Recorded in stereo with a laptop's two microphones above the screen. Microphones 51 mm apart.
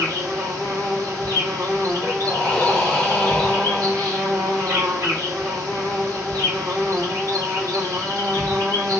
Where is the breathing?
15° left (ahead or behind), 0.9 m.